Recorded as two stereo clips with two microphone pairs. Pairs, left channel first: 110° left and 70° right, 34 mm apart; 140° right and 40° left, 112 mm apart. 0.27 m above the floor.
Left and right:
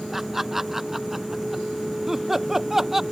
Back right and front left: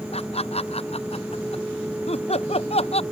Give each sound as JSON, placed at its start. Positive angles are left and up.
{"t": 0.1, "sound": "laughter", "azimuth_deg": -155}